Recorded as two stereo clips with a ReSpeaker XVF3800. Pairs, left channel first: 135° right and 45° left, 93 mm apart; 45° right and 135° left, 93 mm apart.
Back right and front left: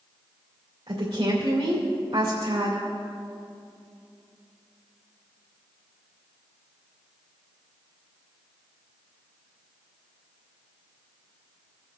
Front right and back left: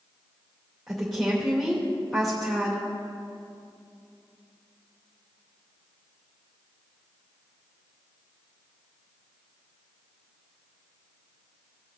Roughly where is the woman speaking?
Ahead left.